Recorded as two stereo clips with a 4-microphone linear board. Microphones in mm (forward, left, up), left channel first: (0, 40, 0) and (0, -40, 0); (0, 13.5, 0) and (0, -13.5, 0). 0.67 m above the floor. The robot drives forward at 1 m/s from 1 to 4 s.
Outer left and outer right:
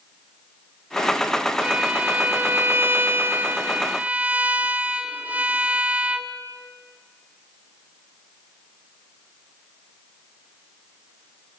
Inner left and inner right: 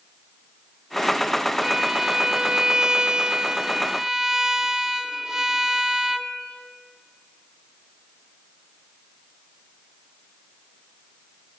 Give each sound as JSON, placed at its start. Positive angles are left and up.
{"t": 1.6, "sound": "a violin", "side_deg": -15, "distance_m": 1.7}